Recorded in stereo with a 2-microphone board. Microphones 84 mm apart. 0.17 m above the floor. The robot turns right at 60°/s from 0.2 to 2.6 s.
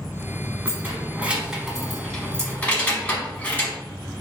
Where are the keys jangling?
25° right (ahead or behind), 0.7 m; by 3.8 s 15° left (ahead or behind), 0.7 m.